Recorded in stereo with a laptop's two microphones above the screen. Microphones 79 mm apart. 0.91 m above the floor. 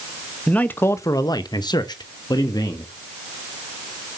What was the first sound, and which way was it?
A man speaking, 15° left (ahead or behind).